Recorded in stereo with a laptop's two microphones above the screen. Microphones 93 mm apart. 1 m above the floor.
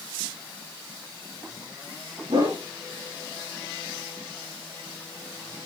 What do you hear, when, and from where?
2.3 s a whoosh: 75° right (ahead or behind), 7 m